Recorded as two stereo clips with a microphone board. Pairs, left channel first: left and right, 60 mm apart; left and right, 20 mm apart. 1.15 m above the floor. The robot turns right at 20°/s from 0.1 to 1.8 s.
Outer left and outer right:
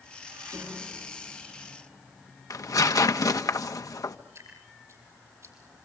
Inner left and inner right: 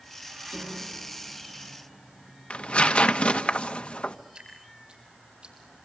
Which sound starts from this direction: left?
Tearing paper, at 2.5 s.